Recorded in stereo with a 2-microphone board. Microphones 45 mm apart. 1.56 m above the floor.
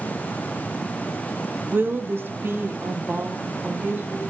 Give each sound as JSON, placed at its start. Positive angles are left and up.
{"t": 1.7, "sound": "a woman speaking", "side_deg": -45, "distance_m": 0.6}